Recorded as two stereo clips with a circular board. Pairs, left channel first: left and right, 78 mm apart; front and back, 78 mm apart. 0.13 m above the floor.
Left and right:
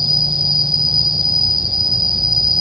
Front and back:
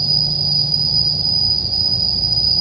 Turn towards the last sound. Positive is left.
turn(degrees=-175)